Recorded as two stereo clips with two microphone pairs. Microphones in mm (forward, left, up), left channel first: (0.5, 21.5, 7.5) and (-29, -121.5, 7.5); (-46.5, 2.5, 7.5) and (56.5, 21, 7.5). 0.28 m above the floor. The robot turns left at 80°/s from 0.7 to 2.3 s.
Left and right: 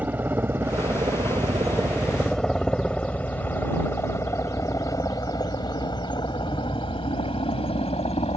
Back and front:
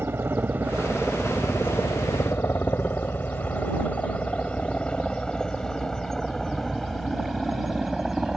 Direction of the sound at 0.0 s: 35° right.